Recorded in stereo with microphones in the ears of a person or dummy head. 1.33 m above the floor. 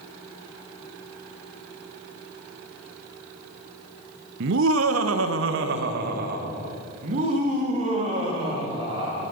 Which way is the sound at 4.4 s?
60° right (ahead or behind).